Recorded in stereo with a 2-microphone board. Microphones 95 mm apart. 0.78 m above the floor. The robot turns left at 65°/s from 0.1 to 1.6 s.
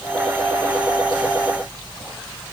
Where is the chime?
No chime in this recording.